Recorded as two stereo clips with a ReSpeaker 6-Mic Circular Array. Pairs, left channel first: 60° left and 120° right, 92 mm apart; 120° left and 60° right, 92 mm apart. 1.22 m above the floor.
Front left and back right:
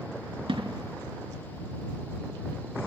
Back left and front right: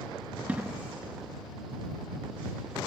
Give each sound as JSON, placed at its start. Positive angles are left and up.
{"t": 0.5, "sound": "an explosion", "azimuth_deg": -135}